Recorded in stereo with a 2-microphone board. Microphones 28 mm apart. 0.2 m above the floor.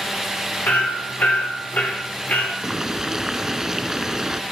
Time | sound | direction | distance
0.7 | hammering | 65° left (ahead or behind) | 8 m
2.6 | boiling | 20° right (ahead or behind) | 0.7 m